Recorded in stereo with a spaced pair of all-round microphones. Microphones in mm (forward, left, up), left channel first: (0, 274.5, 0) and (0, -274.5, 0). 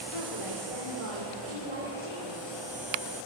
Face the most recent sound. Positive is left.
turn(degrees=65)  # may be behind; listen again after turning